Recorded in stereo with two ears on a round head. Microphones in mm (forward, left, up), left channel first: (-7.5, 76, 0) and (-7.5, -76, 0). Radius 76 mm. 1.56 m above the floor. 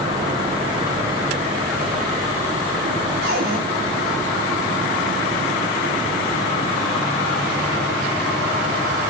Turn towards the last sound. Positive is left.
turn(degrees=-65)  # may be behind; listen again after turning